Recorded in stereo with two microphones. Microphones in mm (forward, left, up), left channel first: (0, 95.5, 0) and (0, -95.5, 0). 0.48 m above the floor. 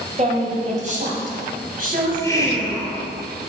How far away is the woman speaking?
About 2 m.